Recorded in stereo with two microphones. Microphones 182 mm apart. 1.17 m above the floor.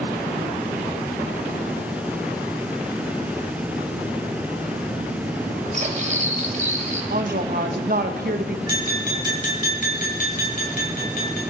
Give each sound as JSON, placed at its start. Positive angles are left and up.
{"t": 5.7, "sound": "cutlery clinking", "side_deg": -45, "distance_m": 3.0}
{"t": 7.1, "sound": "a woman speaking", "side_deg": -60, "distance_m": 1.3}
{"t": 8.7, "sound": "tapping", "side_deg": 60, "distance_m": 6.0}